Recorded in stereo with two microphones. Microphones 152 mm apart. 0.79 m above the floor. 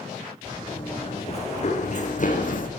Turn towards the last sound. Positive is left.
turn(degrees=65)  # may be behind; listen again after turning